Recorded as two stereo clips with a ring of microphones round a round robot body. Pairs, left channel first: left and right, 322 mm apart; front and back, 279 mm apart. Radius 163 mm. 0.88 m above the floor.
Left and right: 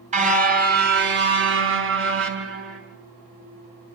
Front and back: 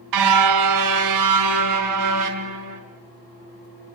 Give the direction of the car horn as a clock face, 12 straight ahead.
5 o'clock.